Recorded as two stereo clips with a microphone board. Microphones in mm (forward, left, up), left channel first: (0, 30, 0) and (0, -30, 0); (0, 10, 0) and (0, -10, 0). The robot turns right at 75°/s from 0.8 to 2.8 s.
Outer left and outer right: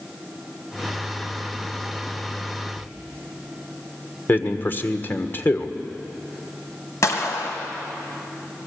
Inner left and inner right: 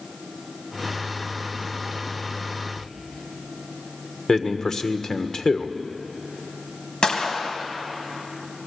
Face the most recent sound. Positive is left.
turn(degrees=60)  # may be behind; listen again after turning